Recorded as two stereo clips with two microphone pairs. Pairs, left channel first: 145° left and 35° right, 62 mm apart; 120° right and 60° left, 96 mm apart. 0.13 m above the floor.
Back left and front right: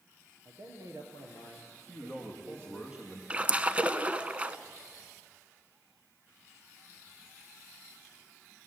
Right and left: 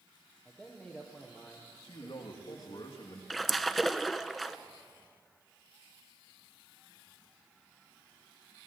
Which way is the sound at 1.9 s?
105° right.